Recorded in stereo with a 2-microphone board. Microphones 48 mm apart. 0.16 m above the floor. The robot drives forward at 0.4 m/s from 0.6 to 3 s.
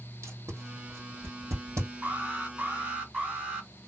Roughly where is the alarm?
Right.